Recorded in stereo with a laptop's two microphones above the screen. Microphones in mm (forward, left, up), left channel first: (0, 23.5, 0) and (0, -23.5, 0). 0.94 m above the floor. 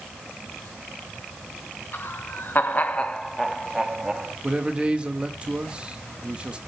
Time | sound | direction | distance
1.9 | laughter | 50° left (ahead or behind) | 1.7 m
4.4 | a man speaking | 20° right (ahead or behind) | 1.4 m